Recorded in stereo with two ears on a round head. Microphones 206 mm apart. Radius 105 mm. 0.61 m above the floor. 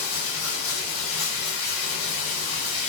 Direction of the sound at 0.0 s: 60° left (ahead or behind).